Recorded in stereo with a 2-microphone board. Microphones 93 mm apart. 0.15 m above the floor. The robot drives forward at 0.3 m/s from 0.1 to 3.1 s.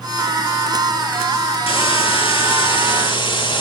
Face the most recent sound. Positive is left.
turn(degrees=60)  # may be behind; listen again after turning